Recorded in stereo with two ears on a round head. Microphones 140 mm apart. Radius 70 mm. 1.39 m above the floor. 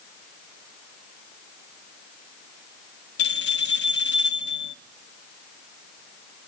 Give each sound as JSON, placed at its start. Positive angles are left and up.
{"t": 3.2, "sound": "a bell", "side_deg": 80, "distance_m": 0.6}